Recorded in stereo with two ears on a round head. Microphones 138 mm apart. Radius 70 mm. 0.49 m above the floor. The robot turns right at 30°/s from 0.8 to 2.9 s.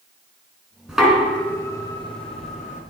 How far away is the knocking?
About 4.5 m.